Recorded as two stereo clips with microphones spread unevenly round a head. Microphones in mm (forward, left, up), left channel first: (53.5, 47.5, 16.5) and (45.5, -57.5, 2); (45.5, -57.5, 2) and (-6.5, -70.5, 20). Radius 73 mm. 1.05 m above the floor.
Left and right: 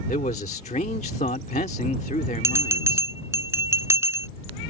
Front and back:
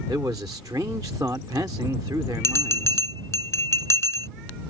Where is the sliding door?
No sliding door in this recording.